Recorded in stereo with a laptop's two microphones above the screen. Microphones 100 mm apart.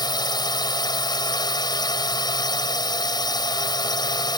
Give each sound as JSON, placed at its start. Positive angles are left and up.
{"t": 0.0, "sound": "a drone", "side_deg": 45}